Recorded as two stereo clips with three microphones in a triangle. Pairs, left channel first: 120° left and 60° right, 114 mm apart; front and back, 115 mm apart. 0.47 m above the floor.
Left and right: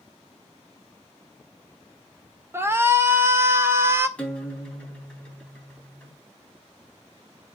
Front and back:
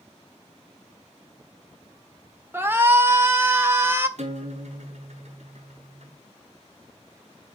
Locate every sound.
2.5 s a shout: 120° right, 1.5 m
4.2 s a guitar: 160° right, 3.5 m